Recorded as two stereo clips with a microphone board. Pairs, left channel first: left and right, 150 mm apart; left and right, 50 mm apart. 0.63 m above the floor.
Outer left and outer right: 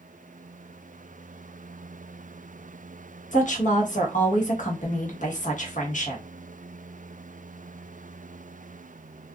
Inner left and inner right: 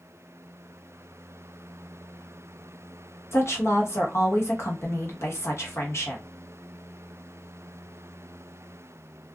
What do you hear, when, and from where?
3.3 s a woman speaking: 55° left (ahead or behind), 1.0 m